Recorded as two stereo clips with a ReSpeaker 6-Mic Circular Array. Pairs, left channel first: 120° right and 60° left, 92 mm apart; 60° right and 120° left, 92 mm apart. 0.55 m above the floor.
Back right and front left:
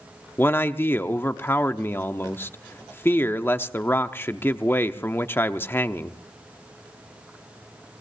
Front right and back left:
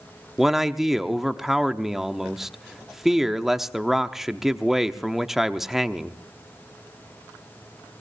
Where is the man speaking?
160° right, 0.8 m.